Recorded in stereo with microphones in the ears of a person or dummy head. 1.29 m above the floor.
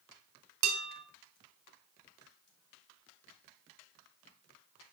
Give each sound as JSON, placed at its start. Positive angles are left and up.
{"t": 0.6, "sound": "dishes clattering", "side_deg": -75, "distance_m": 3.5}